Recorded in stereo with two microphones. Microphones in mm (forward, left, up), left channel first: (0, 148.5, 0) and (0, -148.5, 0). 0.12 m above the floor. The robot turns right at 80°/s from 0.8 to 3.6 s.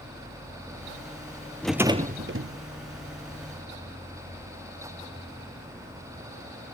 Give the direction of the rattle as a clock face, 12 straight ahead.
6 o'clock.